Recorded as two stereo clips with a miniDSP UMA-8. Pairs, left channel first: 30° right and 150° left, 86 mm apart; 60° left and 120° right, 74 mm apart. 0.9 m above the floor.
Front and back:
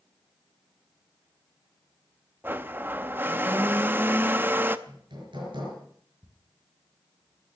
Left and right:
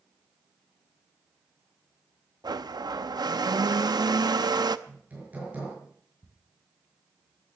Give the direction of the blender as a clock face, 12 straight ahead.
5 o'clock.